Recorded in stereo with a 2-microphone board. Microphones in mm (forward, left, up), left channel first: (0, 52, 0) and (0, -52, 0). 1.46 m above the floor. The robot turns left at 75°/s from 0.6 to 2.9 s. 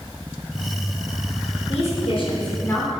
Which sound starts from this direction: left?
A woman speaking, at 1.7 s.